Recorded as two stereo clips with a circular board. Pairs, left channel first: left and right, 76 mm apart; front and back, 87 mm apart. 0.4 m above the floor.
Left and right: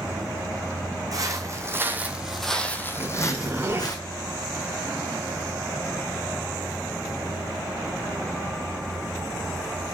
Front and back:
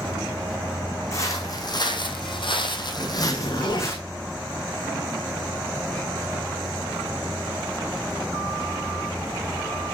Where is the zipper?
30° right, 3 m.